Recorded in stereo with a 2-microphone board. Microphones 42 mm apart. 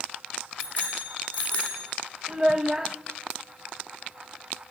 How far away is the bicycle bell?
About 8 m.